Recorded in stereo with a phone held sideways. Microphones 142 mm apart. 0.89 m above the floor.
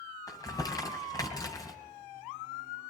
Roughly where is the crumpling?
Left.